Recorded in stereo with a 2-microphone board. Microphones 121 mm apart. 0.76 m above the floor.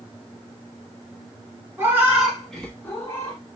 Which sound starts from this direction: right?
A cat meowing, at 1.8 s.